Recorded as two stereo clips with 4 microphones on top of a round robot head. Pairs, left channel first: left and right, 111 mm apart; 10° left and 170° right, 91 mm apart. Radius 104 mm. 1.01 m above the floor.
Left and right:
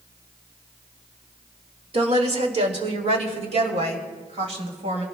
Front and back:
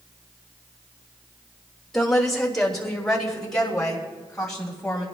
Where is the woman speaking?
75° right, 2.0 m; by 5.0 s 70° right, 4.5 m.